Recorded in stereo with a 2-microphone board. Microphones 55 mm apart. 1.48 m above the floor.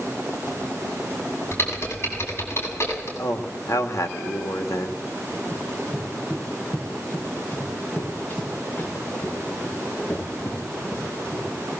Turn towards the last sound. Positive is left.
turn(degrees=40)  # may be behind; listen again after turning